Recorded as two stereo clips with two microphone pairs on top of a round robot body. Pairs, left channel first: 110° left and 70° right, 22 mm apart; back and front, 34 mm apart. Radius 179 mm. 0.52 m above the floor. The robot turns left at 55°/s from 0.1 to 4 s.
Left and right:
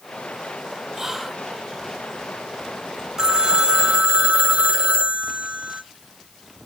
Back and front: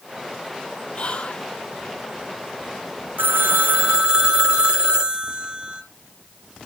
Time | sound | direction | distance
0.9 | whispering | 145° right | 1.1 m
3.2 | a phone ringing | 15° right | 1.6 m